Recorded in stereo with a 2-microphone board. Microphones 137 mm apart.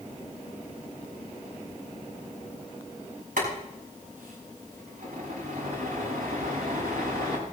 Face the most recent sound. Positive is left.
turn(degrees=-75)  # may be behind; listen again after turning